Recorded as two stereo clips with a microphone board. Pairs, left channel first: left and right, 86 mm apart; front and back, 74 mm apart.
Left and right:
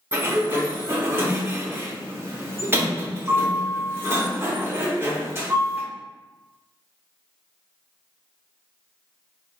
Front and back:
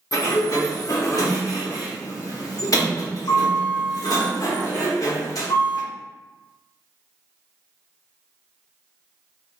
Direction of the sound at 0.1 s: 30° right.